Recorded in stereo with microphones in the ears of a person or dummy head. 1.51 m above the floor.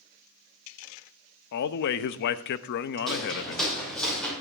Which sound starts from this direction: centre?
Footsteps, at 3.1 s.